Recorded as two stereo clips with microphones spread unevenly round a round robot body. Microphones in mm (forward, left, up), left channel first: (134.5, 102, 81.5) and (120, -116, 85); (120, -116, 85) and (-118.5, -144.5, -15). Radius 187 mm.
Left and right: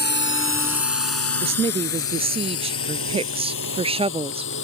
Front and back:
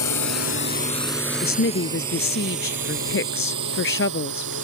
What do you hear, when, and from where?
0.0 s a drone: 45° left; by 4.7 s 135° left
1.4 s a woman speaking: 30° right